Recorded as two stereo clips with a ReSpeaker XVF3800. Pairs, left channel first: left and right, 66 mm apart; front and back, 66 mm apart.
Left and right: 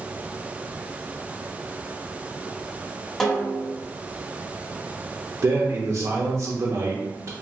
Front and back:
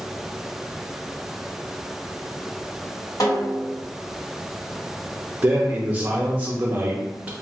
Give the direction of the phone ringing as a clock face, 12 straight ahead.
I don't hear a phone ringing.